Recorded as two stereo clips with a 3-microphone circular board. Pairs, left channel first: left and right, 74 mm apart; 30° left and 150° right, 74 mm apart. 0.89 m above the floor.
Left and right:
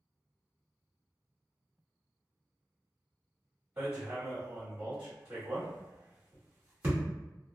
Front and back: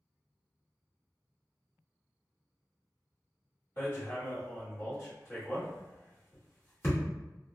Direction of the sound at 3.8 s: 30° right.